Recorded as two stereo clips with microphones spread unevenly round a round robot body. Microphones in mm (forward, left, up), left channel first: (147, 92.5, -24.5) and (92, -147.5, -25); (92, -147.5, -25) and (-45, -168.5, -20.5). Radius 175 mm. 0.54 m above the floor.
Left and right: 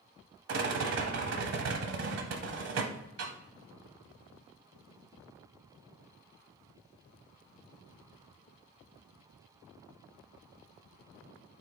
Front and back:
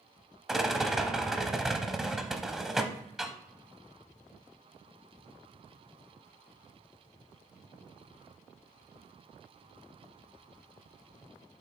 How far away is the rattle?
About 0.7 m.